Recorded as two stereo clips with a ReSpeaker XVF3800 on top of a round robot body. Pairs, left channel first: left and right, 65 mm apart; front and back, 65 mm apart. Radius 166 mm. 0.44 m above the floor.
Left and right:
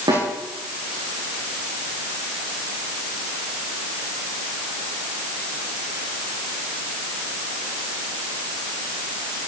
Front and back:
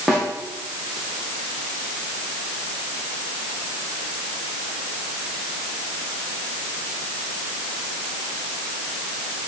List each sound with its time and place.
0.1 s a snare drum: 90° right, 9.5 m